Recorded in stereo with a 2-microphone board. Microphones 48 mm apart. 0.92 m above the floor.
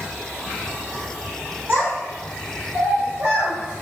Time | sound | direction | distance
1.7 | a child speaking | 35° right (ahead or behind) | 2.5 m